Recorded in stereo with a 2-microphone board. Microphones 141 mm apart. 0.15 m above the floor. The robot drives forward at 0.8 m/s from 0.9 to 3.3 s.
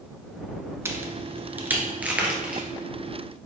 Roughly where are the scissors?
I don't hear scissors.